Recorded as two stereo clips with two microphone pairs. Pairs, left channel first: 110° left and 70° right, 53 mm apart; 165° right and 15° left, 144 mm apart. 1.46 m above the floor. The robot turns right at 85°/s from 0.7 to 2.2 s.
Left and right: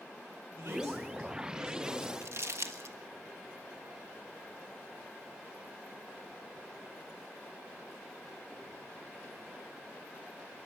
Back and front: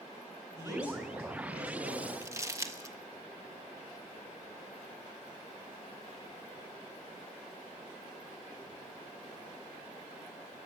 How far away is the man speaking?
About 9.5 m.